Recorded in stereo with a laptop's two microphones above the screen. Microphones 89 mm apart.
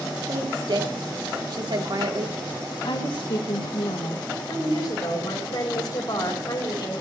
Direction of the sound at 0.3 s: 60° right (ahead or behind).